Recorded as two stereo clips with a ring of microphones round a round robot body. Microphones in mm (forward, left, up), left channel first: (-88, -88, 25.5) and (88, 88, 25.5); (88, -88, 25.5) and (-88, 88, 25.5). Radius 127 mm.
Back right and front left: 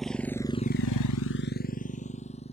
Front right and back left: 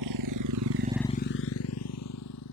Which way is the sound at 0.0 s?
135° left.